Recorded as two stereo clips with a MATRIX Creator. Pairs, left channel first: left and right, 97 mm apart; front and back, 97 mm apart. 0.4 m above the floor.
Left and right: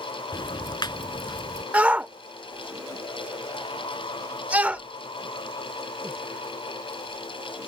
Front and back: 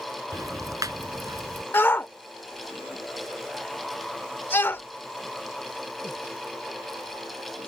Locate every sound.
0.3 s ticking: 130° left
1.7 s a shout: 35° right